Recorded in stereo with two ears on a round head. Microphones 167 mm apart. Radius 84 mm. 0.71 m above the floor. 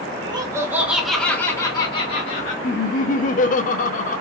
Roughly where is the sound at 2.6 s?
Left.